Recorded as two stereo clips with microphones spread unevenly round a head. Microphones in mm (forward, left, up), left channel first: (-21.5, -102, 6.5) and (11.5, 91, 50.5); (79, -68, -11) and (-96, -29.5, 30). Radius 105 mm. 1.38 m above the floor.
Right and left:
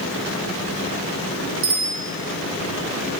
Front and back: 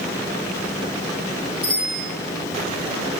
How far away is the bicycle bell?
About 4 m.